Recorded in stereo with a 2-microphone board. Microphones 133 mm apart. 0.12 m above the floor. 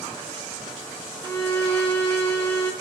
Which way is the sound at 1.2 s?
15° left (ahead or behind).